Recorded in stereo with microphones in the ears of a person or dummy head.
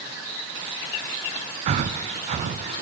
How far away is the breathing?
About 0.7 m.